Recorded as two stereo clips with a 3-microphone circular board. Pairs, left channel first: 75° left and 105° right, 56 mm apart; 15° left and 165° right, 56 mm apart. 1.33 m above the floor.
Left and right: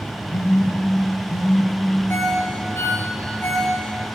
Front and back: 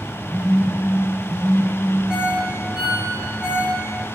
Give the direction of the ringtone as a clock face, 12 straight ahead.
8 o'clock.